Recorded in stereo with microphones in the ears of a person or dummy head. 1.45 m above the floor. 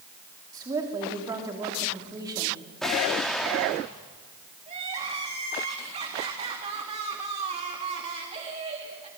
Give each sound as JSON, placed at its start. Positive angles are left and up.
{"t": 0.5, "sound": "a woman speaking", "side_deg": -25, "distance_m": 3.5}
{"t": 2.8, "sound": "an explosion", "side_deg": 0, "distance_m": 3.0}
{"t": 4.7, "sound": "crying", "side_deg": -35, "distance_m": 3.5}